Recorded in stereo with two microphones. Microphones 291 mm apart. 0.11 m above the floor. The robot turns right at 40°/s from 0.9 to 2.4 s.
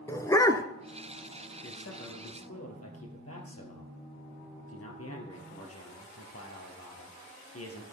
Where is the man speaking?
75° left, 2 m; by 7.8 s 105° left, 2 m.